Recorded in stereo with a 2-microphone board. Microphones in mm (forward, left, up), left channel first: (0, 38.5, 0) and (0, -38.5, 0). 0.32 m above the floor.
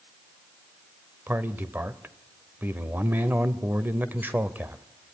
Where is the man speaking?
25° right (ahead or behind), 0.9 m.